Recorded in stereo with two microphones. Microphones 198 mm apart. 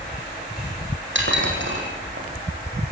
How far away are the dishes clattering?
About 5 m.